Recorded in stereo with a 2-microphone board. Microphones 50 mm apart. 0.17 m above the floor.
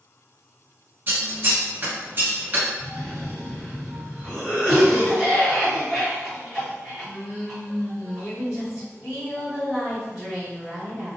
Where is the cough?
20° right (ahead or behind), 1.7 m.